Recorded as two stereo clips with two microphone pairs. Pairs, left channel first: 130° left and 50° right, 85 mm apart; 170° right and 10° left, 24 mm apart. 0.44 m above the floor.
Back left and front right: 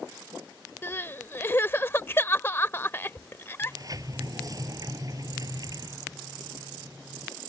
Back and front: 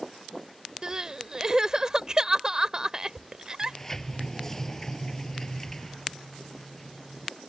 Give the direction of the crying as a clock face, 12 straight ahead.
10 o'clock.